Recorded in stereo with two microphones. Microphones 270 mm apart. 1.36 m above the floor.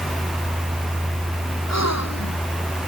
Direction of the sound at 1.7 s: 75° left (ahead or behind).